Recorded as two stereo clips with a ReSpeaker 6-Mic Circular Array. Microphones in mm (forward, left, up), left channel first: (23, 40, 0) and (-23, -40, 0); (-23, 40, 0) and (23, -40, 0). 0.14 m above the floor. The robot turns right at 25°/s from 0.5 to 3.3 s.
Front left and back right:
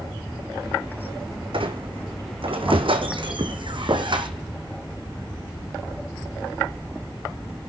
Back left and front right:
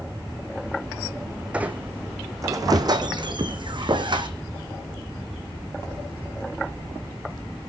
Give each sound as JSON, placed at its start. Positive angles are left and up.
{"t": 1.5, "sound": "a squeak", "azimuth_deg": -140, "distance_m": 1.5}